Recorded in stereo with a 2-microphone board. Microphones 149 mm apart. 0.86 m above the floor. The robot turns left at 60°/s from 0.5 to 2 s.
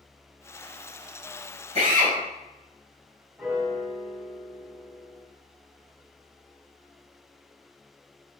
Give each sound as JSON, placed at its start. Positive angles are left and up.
{"t": 1.8, "sound": "a drill", "side_deg": -45, "distance_m": 2.5}
{"t": 3.4, "sound": "a piano", "side_deg": -5, "distance_m": 2.0}